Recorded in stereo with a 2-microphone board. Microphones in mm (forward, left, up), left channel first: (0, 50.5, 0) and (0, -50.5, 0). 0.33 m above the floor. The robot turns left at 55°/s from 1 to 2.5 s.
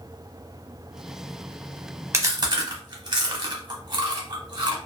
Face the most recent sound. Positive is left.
turn(degrees=-45)  # may be behind; listen again after turning